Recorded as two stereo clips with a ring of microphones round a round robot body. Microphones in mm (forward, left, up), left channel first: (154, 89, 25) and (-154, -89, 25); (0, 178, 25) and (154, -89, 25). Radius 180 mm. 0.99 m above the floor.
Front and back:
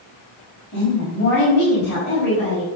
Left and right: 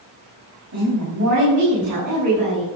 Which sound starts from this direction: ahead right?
A woman speaking, at 0.7 s.